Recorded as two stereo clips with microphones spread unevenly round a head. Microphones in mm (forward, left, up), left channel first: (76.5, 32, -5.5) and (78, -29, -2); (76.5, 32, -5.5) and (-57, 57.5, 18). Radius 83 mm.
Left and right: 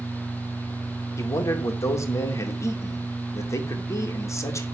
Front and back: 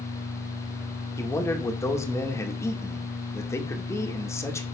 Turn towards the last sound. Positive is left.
turn(degrees=60)